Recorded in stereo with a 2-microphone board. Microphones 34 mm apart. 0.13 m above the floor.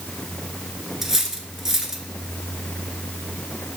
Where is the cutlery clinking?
10° right (ahead or behind), 0.9 m.